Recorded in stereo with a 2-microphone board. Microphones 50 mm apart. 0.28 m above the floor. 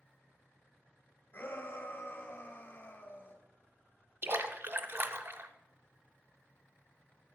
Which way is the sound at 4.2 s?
55° right (ahead or behind).